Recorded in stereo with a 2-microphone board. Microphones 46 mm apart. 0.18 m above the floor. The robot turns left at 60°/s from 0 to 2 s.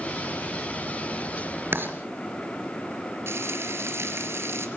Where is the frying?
65° right (ahead or behind), 3 m.